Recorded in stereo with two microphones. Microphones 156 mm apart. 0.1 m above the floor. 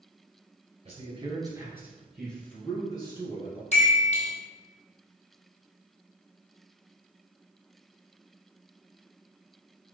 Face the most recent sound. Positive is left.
turn(degrees=45)  # may be behind; listen again after turning